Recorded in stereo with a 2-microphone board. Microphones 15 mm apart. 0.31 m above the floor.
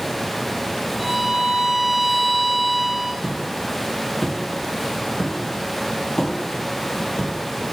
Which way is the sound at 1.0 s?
Centre (ahead or behind).